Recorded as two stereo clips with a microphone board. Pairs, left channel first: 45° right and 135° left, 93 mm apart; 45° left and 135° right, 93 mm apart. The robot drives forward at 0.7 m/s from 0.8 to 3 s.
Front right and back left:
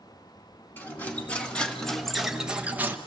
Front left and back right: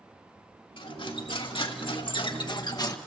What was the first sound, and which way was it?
Cutlery clinking, 25° left.